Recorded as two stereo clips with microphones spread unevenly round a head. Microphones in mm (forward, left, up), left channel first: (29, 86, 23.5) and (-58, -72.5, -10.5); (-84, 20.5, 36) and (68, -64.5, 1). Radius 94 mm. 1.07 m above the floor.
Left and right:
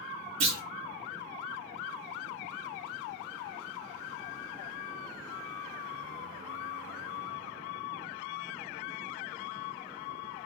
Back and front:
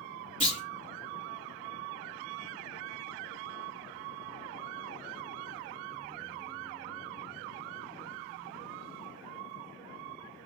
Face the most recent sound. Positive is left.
turn(degrees=-90)